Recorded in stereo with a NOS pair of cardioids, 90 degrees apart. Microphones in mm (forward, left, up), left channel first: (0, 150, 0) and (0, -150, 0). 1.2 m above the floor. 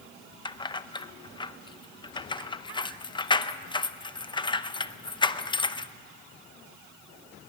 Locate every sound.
0.5 s keys jangling: 15° left, 0.7 m